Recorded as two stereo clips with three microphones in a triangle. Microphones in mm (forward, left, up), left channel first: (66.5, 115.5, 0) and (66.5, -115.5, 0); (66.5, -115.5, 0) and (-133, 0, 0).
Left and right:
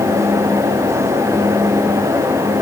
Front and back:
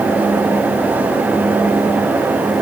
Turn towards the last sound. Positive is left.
No sound to turn to.